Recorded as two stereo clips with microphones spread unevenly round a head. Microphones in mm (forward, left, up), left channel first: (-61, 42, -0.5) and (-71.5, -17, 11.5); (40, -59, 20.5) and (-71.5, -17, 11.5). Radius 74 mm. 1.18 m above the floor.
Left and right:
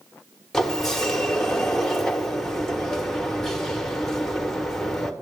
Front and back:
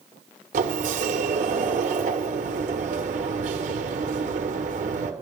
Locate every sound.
0.5 s a sliding door: 165° left, 1.2 m